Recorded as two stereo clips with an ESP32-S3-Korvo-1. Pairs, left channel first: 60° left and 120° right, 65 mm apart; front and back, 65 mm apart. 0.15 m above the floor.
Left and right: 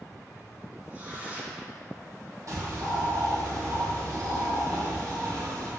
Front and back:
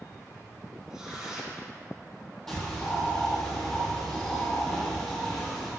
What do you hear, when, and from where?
0.9 s tearing paper: 110° right, 1.7 m
2.5 s a bird: 85° right, 2.5 m